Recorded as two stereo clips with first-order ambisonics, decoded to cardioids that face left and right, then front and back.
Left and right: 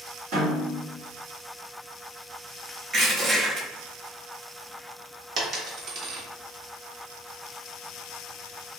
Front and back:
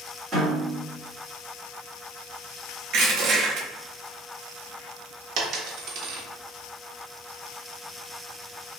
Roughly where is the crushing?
Behind right.